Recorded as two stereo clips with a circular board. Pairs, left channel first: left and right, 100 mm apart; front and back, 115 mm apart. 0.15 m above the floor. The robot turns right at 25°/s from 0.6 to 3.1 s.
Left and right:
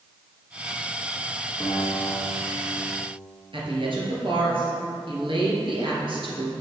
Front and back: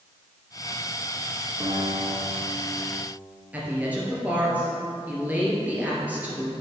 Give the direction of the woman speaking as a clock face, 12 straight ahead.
3 o'clock.